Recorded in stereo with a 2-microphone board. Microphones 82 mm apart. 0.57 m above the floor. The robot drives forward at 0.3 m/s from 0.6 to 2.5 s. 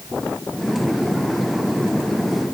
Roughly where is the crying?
No crying in this recording.